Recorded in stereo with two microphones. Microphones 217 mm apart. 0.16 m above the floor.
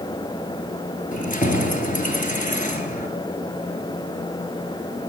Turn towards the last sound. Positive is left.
turn(degrees=35)  # may be behind; listen again after turning